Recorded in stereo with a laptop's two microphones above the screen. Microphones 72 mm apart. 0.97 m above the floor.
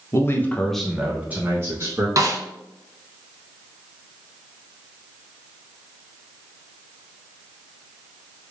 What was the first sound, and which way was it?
A man speaking, 40° left (ahead or behind).